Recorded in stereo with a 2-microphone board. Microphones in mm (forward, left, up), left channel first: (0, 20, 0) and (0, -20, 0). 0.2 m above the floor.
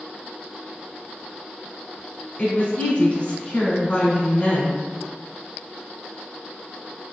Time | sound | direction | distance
2.4 | a woman speaking | 35° left (ahead or behind) | 1.3 m